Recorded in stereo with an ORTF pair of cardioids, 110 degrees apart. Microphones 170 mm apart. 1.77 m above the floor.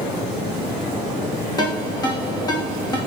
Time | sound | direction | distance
1.6 | a ringtone | 25° left | 1.9 m